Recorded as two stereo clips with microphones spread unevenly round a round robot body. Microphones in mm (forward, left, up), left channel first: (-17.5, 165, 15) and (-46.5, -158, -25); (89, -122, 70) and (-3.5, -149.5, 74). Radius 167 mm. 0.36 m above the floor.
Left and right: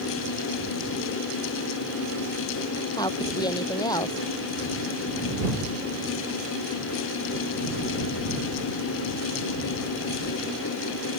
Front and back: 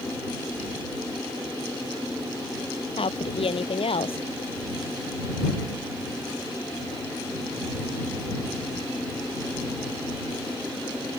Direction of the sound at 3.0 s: 5° left.